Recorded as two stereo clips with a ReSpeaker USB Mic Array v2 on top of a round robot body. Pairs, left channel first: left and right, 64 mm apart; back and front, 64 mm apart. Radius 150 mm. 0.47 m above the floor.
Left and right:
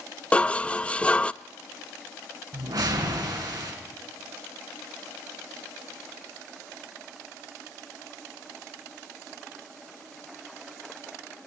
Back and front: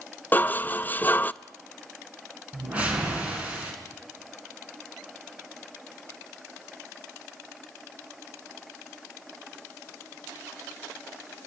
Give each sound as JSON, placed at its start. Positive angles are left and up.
{"t": 0.3, "sound": "dishes clattering", "azimuth_deg": 145, "distance_m": 0.6}
{"t": 2.5, "sound": "a whoosh", "azimuth_deg": -70, "distance_m": 3.5}